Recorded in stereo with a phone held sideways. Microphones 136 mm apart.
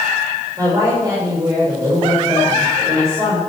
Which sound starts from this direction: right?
A woman speaking, at 0.6 s.